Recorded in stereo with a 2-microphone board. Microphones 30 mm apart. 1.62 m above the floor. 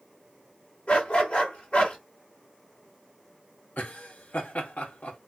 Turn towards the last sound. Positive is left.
turn(degrees=70)  # may be behind; listen again after turning